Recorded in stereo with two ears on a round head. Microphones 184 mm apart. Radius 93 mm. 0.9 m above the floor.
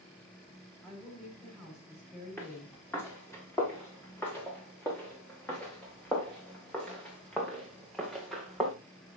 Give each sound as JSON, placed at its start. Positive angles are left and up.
{"t": 0.8, "sound": "a woman speaking", "side_deg": 5, "distance_m": 6.0}
{"t": 2.4, "sound": "footsteps", "side_deg": 10, "distance_m": 6.0}